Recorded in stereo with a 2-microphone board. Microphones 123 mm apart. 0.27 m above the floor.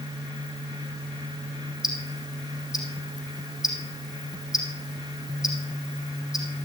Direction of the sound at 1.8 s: 5° right (ahead or behind).